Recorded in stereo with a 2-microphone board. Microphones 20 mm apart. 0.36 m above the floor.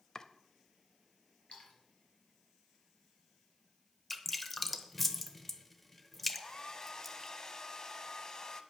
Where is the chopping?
30° left (ahead or behind), 0.7 m.